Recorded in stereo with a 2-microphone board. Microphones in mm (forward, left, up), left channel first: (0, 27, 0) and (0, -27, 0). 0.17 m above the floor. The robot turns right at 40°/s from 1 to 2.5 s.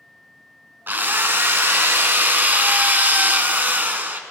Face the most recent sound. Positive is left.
turn(degrees=-55)